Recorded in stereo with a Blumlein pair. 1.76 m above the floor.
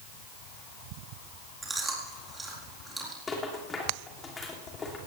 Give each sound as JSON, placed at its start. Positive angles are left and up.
{"t": 1.6, "sound": "chewing", "azimuth_deg": -10, "distance_m": 4.0}
{"t": 3.3, "sound": "a rattle", "azimuth_deg": 15, "distance_m": 3.0}